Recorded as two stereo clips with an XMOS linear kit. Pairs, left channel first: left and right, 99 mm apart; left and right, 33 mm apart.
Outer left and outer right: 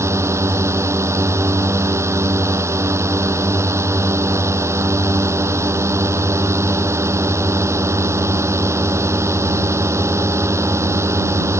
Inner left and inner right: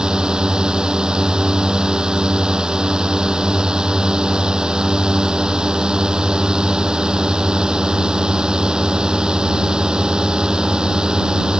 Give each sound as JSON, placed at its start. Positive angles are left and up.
{"t": 0.0, "sound": "a drone", "side_deg": -30}